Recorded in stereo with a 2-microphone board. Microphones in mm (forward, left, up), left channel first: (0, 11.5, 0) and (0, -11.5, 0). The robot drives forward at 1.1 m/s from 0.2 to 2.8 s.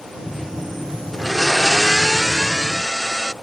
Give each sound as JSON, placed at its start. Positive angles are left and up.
{"t": 1.1, "sound": "a blender", "side_deg": 5}